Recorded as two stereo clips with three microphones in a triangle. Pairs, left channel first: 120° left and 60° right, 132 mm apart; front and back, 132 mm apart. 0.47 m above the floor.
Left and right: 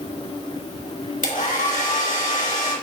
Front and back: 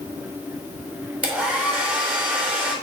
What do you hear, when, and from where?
1.2 s a hair dryer: 100° left, 3 m